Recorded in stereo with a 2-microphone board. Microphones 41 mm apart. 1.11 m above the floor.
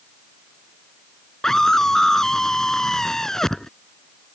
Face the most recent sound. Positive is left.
turn(degrees=10)  # may be behind; listen again after turning